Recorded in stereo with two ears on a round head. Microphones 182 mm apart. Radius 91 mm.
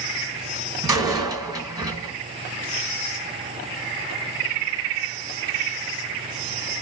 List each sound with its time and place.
0.8 s a door slam: 20° right (ahead or behind), 2 m